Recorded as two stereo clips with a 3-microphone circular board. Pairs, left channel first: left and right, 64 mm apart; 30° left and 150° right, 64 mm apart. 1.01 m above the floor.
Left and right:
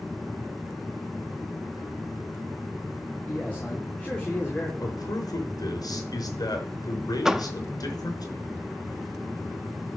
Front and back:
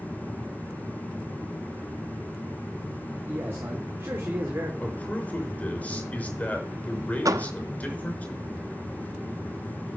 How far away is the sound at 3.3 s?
About 3 m.